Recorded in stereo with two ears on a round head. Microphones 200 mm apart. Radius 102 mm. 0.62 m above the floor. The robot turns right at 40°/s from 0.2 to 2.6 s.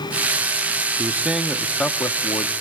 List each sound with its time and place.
1.0 s a man speaking: 25° right, 0.9 m; by 2.5 s 40° left, 0.9 m